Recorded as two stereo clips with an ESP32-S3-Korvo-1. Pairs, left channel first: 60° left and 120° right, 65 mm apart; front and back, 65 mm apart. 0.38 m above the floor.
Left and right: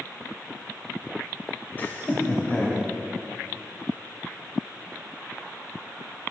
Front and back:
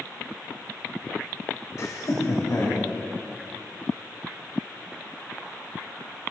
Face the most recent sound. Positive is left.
turn(degrees=-10)